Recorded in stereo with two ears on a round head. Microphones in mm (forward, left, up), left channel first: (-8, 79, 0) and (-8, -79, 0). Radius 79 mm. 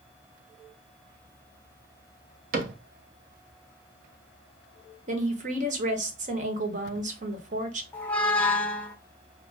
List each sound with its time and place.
2.5 s a cupboard door: 50° right (ahead or behind), 0.8 m
5.1 s a woman speaking: 45° right (ahead or behind), 1.2 m
7.9 s a squeak: 10° left (ahead or behind), 0.5 m